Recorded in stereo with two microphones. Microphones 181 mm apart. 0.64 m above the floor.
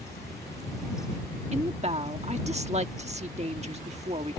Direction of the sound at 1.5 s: 35° right (ahead or behind).